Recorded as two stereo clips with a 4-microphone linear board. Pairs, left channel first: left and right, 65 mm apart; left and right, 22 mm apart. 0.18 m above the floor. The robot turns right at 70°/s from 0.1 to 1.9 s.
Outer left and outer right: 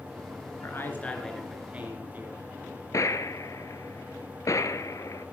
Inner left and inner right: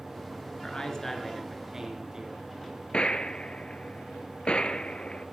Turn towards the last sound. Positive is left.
turn(degrees=55)  # may be behind; listen again after turning